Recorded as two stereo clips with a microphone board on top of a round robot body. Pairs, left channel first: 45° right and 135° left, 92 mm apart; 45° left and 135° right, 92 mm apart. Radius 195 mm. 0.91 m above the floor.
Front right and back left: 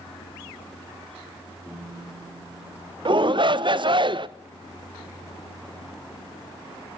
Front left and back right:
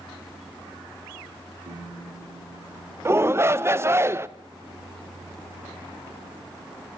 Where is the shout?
165° left, 0.9 m.